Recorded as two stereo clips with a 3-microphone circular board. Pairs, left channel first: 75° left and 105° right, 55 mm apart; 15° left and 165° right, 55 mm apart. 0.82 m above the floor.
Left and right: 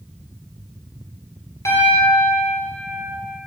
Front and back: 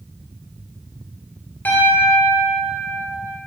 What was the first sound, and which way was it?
A piano, 70° left.